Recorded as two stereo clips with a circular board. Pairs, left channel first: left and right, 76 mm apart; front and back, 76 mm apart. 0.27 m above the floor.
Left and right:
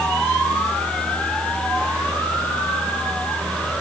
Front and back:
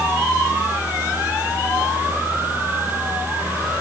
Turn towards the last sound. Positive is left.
No sound to turn to.